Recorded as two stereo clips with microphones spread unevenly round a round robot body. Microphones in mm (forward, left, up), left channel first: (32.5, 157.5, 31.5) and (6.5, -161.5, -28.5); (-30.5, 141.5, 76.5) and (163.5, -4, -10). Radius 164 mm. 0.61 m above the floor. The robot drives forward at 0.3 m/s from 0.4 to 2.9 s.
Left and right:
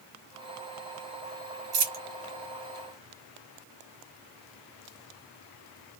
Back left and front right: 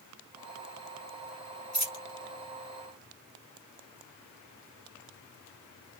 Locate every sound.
1.7 s a dropped coin: 145° right, 1.1 m; by 2.0 s 150° right, 1.2 m